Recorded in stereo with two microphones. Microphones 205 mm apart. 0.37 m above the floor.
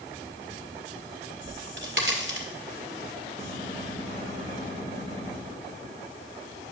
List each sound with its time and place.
1.4 s a crack: 70° right (ahead or behind), 1.8 m
3.4 s a gunshot: 35° right (ahead or behind), 5 m